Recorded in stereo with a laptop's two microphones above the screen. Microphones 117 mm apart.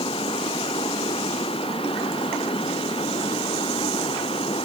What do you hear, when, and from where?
0.0 s running water: 50° left (ahead or behind)